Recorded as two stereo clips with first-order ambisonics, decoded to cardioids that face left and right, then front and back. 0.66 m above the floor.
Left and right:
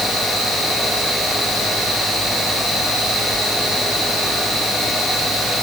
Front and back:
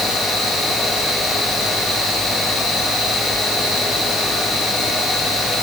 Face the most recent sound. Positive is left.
No sound to turn to.